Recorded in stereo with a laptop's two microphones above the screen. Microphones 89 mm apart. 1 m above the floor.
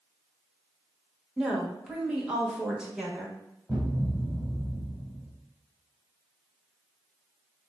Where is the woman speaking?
10° right (ahead or behind), 1.3 m.